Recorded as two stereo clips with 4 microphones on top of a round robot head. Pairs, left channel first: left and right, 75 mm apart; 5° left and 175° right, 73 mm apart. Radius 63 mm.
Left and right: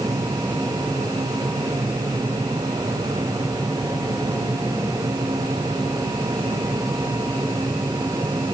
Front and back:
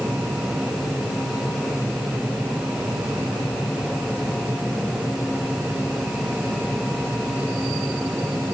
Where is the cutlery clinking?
No cutlery clinking in this recording.